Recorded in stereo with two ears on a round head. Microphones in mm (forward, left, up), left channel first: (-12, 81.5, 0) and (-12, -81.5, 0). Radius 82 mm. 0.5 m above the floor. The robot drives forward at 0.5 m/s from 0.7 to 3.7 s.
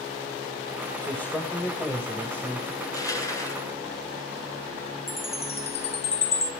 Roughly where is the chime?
Left.